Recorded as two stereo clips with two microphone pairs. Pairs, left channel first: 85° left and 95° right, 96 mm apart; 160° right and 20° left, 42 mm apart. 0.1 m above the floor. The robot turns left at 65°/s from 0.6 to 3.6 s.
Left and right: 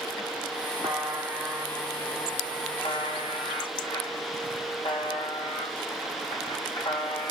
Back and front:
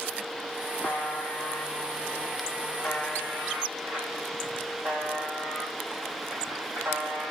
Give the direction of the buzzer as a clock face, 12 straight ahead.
4 o'clock.